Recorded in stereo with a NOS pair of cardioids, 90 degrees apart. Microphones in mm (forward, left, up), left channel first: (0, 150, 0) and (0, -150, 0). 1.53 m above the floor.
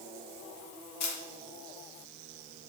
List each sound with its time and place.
1.0 s a camera shutter: 60° left, 1.0 m